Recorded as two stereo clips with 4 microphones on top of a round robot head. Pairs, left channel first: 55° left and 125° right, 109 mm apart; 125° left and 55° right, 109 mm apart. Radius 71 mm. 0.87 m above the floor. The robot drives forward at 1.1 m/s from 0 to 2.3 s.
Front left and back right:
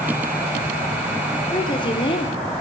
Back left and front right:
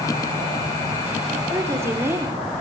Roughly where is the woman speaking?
Ahead.